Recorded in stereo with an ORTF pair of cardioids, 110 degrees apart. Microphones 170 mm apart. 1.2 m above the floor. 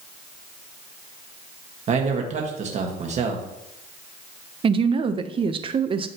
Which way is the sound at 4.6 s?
30° right.